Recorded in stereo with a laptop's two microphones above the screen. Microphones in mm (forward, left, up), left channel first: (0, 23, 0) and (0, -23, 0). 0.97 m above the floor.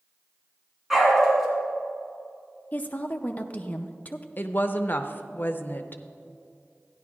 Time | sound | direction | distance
0.9 | a dog barking | 5° right (ahead or behind) | 3 m
2.7 | a woman speaking | 35° left (ahead or behind) | 0.5 m
4.4 | a woman speaking | 45° left (ahead or behind) | 0.6 m